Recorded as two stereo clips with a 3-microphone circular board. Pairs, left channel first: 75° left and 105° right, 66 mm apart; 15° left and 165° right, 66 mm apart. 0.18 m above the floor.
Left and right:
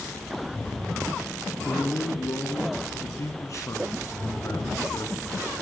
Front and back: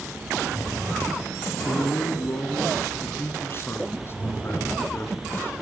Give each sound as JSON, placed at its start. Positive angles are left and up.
{"t": 1.6, "sound": "a man speaking", "azimuth_deg": 55, "distance_m": 2.5}